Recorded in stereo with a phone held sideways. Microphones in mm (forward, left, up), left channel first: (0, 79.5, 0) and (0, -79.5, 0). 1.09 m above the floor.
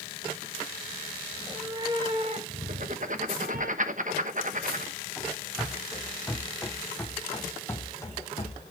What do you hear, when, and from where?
1.3 s a cat meowing: 10° right (ahead or behind), 1.7 m; by 3.7 s 70° right (ahead or behind), 2.5 m
2.7 s writing: 55° right (ahead or behind), 1.0 m
5.2 s running footsteps: 10° right (ahead or behind), 4 m; by 8.7 s 30° left (ahead or behind), 2.5 m